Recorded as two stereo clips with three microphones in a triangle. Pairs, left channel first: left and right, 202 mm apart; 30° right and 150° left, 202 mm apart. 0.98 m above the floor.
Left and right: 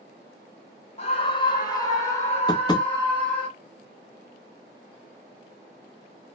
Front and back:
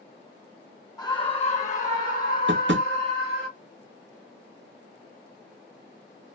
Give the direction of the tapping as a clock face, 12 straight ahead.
7 o'clock.